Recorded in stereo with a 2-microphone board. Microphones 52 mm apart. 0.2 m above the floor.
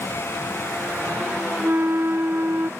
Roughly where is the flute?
Right.